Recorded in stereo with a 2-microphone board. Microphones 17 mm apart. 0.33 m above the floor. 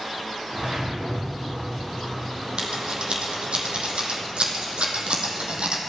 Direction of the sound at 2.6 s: 90° right.